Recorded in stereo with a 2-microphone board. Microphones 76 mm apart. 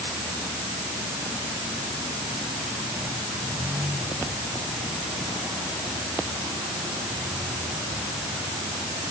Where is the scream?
I don't hear a scream.